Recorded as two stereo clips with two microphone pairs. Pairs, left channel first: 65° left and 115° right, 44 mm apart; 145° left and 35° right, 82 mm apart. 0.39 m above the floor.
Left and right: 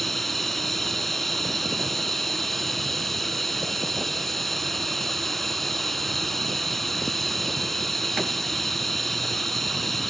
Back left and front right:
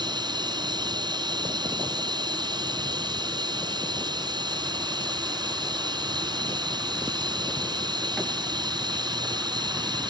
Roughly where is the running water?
Ahead.